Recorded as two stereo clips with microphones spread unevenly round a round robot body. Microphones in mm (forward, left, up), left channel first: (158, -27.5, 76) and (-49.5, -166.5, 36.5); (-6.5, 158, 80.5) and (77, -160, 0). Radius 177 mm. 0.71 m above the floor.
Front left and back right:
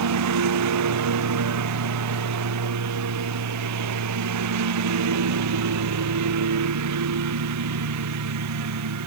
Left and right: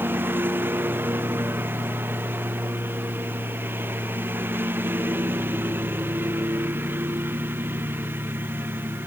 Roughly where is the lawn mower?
Behind.